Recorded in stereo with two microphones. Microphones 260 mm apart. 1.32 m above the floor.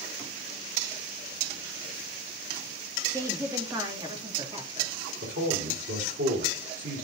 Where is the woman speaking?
10° right (ahead or behind), 2 m; by 4.9 s 20° right (ahead or behind), 3 m.